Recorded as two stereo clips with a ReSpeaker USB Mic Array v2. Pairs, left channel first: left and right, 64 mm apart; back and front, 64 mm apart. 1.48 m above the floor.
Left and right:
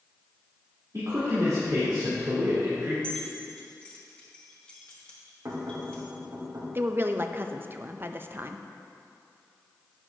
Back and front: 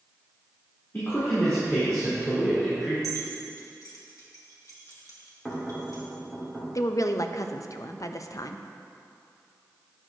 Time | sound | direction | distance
0.9 | a man speaking | 120° right | 3 m
3.0 | keys jangling | 160° left | 1.7 m
5.5 | knocking | 100° right | 2.5 m
6.8 | a woman speaking | 145° right | 0.5 m